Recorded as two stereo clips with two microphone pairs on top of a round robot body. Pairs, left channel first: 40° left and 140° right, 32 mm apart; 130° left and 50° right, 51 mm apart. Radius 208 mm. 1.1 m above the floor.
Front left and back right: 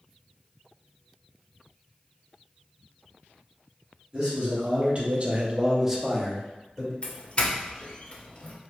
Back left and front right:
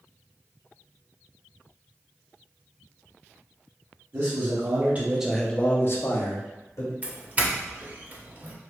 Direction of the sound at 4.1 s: 75° right.